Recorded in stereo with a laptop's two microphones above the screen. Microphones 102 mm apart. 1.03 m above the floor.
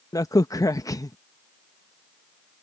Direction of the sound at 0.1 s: 35° left (ahead or behind).